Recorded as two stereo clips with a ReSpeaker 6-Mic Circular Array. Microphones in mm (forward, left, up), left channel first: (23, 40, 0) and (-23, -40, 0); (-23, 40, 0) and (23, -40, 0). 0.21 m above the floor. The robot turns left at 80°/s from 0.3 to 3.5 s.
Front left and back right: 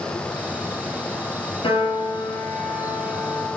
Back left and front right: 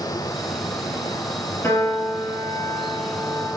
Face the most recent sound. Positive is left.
turn(degrees=-90)